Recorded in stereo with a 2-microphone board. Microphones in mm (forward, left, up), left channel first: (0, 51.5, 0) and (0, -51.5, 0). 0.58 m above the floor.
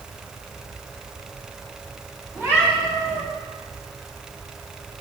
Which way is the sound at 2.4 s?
25° right (ahead or behind).